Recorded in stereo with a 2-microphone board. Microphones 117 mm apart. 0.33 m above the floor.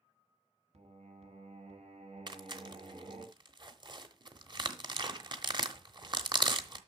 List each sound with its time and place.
0.7 s singing: 70° right (ahead or behind), 1.5 m
2.3 s tearing paper: 40° right (ahead or behind), 0.9 m